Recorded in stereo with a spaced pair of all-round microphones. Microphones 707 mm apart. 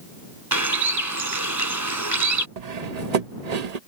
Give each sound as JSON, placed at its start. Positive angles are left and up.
{"t": 0.5, "sound": "a bird", "side_deg": -25}
{"t": 2.6, "sound": "cutlery clinking", "side_deg": -65}